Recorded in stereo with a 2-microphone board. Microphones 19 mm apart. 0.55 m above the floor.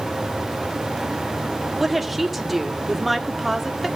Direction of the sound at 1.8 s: 5° right (ahead or behind).